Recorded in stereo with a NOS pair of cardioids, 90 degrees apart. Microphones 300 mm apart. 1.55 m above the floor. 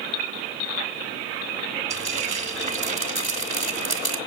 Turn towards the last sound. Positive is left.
turn(degrees=-20)